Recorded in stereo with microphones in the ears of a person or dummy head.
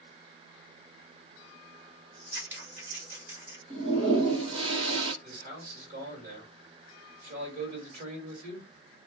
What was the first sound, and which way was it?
Scissors, 15° right (ahead or behind).